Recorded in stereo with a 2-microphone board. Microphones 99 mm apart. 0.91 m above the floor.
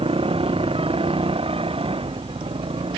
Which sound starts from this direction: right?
A motorcycle, at 0.0 s.